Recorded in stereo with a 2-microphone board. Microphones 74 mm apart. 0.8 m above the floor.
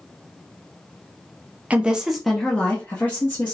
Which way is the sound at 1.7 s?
20° right (ahead or behind).